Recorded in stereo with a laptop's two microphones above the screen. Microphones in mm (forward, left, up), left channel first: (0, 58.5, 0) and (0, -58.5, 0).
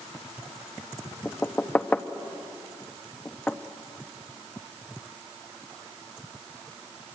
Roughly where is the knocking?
Centre.